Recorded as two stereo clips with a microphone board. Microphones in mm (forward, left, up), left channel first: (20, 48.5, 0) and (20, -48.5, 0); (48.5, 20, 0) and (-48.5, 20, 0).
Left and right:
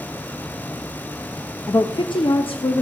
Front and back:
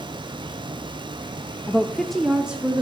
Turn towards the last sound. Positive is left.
turn(degrees=105)